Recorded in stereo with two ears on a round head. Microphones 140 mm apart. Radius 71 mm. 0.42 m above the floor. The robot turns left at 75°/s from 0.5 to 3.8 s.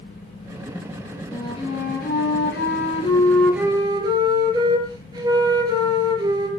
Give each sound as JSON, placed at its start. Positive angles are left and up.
{"t": 1.3, "sound": "a flute", "azimuth_deg": 160, "distance_m": 5.5}